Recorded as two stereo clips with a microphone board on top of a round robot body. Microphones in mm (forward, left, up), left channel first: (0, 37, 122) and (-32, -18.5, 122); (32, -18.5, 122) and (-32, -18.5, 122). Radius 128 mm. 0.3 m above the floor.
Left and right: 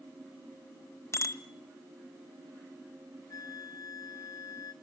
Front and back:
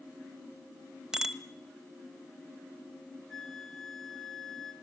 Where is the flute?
85° left, 3 m.